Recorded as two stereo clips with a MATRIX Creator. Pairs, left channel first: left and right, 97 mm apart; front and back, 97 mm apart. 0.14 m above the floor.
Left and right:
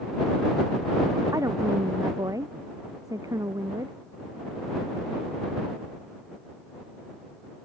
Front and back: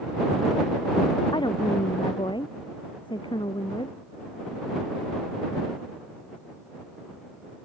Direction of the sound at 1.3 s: 35° right.